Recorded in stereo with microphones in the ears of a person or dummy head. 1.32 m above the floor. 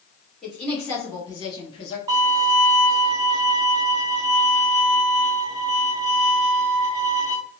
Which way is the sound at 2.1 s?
20° right (ahead or behind).